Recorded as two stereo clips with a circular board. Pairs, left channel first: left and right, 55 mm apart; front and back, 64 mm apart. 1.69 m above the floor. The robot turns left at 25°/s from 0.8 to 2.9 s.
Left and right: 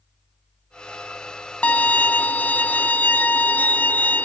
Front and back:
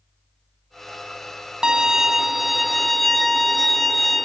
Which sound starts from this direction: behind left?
A violin, at 1.6 s.